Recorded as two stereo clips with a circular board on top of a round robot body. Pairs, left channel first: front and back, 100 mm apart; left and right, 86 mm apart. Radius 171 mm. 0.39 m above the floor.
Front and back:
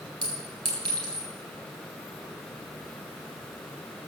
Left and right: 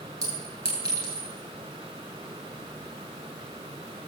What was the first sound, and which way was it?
A clink, 135° right.